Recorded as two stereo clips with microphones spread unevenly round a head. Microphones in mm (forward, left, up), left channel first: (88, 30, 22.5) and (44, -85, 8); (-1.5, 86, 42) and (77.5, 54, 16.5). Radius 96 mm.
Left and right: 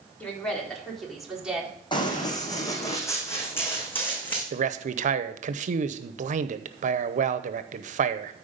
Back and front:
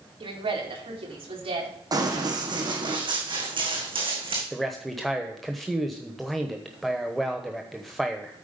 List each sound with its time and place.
0.2 s a woman speaking: 10° right, 4 m; by 1.7 s 30° right, 4 m
1.9 s running footsteps: 25° left, 3 m; by 4.4 s 5° right, 4.5 m
4.5 s a man speaking: 105° right, 0.8 m